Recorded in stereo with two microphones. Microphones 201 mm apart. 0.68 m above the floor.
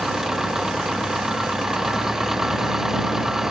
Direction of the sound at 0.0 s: Centre (ahead or behind).